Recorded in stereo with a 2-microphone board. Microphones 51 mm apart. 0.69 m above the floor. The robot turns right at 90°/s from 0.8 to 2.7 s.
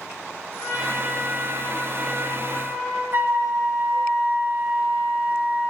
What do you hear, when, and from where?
0.6 s a trumpet: 90° left, 3.5 m; by 3.0 s 100° right, 3.5 m
3.1 s a flute: 45° right (ahead or behind), 1.1 m